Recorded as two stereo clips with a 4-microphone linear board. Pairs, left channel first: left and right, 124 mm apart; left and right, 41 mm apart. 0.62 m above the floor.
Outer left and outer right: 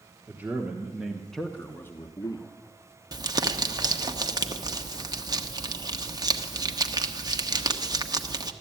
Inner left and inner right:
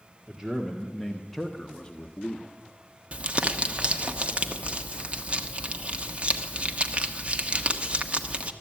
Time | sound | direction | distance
0.3 | a man speaking | 15° right (ahead or behind) | 1.5 m
3.1 | crumpling | 30° right (ahead or behind) | 1.0 m